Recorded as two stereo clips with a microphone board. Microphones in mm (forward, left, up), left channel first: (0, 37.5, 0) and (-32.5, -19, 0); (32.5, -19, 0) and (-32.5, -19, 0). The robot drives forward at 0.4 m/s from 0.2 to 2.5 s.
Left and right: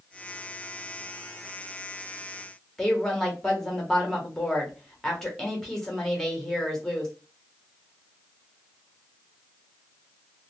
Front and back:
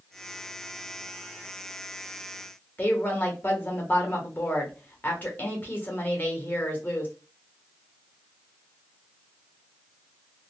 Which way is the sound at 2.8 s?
15° right.